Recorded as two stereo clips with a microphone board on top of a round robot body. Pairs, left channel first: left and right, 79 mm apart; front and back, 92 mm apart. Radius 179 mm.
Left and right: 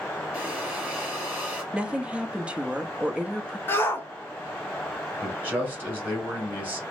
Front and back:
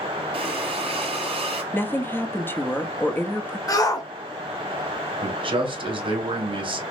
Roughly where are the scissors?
No scissors in this recording.